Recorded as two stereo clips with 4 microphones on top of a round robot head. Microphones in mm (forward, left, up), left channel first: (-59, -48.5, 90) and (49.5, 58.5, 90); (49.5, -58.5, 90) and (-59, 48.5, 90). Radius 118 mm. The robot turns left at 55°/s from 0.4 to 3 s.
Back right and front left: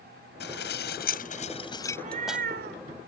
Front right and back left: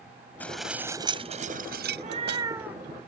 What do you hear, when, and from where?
0.4 s dishes clattering: 125° right; by 2.5 s 125° left
1.9 s a cat meowing: 100° left; by 2.8 s 45° left